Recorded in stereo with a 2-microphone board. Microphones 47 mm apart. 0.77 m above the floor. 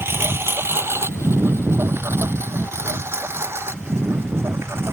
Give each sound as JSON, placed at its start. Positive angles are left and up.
{"t": 0.0, "sound": "a lawn mower", "side_deg": -55}